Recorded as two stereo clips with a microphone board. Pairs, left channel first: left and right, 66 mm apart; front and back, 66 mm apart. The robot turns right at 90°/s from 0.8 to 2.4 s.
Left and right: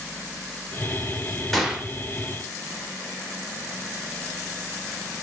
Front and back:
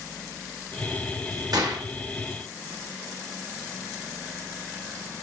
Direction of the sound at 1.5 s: 175° left.